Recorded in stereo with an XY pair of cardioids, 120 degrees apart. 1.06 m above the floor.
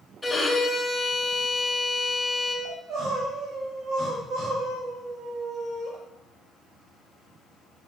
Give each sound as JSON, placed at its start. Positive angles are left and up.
{"t": 0.2, "sound": "a violin", "azimuth_deg": 5, "distance_m": 3.5}
{"t": 2.6, "sound": "crying", "azimuth_deg": -50, "distance_m": 4.5}